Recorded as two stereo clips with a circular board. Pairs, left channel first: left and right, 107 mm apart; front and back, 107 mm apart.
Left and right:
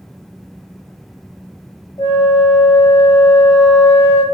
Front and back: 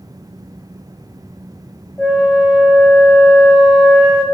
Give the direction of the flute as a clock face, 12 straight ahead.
9 o'clock.